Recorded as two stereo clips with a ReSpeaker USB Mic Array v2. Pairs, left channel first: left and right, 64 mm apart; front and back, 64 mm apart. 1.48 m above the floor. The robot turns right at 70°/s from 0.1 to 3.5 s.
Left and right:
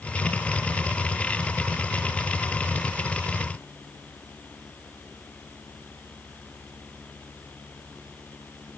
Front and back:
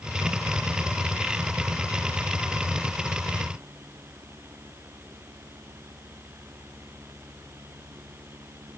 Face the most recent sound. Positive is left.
No sound to turn to.